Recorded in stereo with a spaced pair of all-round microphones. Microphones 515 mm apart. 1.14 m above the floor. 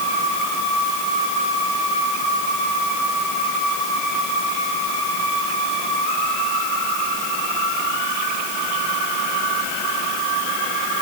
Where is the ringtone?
No ringtone in this recording.